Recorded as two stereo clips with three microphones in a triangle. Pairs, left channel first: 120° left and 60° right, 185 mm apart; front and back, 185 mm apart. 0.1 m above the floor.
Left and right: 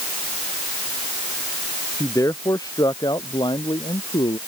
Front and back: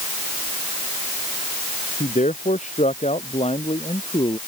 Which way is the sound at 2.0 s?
45° left.